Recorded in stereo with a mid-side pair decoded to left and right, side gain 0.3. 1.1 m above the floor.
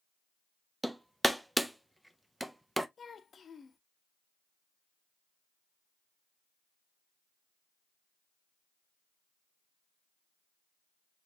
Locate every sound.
0.8 s hammering: 10° right, 0.7 m
3.0 s a child speaking: 60° left, 0.8 m